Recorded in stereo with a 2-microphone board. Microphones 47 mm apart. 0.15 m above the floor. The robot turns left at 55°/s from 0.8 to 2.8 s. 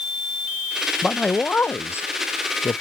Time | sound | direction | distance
1.0 | a man speaking | 170° left | ?